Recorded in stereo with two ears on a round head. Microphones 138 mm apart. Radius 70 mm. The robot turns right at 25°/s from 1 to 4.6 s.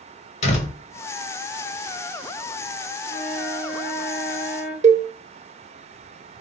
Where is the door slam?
45° left (ahead or behind), 1.3 m.